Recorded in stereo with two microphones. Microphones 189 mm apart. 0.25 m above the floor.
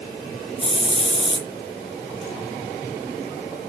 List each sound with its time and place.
0.6 s a hiss: 30° left (ahead or behind), 3 m